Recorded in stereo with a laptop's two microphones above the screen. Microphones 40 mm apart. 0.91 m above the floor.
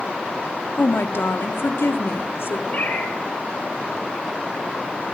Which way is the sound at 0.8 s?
70° left (ahead or behind).